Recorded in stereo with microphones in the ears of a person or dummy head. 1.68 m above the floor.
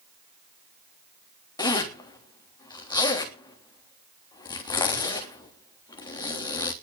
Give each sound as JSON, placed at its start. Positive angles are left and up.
{"t": 1.6, "sound": "a zipper", "side_deg": 20, "distance_m": 3.5}